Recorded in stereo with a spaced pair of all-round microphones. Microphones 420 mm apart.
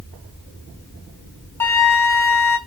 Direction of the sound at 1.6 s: 5° left (ahead or behind).